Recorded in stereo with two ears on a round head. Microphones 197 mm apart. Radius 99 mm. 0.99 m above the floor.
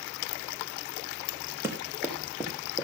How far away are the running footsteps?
About 4.5 m.